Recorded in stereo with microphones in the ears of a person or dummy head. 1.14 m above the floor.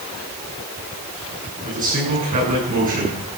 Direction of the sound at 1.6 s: 45° right (ahead or behind).